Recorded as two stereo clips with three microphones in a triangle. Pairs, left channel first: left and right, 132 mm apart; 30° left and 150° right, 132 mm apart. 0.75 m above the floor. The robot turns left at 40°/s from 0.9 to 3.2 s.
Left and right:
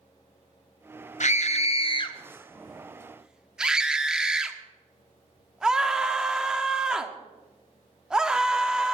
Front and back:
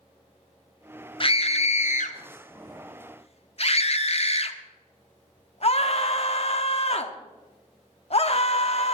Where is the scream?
75° left, 1.1 m; by 8.9 s 5° right, 1.1 m.